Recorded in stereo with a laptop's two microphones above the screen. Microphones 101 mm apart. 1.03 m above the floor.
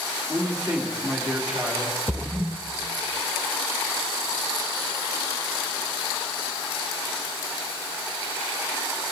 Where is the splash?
15° right (ahead or behind), 0.6 m.